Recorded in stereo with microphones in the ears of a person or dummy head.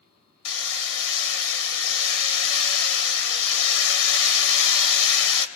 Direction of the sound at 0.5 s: 70° left (ahead or behind).